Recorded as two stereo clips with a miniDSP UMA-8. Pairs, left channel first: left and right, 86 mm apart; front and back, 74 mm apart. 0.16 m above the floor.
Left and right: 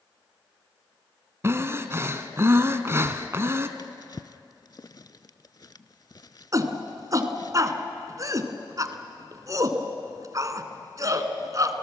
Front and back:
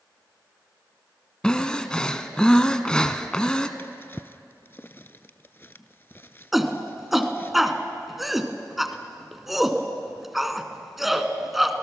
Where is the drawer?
55° left, 0.5 m.